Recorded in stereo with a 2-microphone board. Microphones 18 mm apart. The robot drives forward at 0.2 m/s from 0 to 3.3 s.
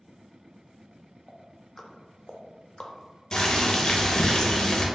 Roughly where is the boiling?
Left.